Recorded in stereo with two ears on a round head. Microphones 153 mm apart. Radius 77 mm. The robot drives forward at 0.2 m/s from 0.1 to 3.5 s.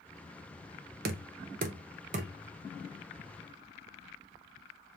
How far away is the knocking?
About 0.5 m.